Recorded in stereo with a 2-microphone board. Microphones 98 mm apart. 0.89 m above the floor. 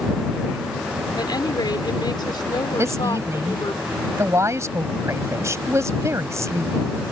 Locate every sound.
1.2 s a woman speaking: 45° left (ahead or behind)
2.8 s a woman speaking: 30° right (ahead or behind)